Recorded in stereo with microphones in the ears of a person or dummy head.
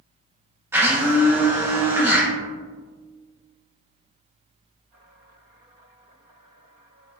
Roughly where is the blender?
Centre.